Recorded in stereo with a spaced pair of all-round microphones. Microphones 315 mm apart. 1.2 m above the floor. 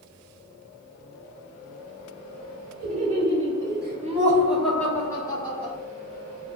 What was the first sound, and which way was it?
Laughter, 45° right (ahead or behind).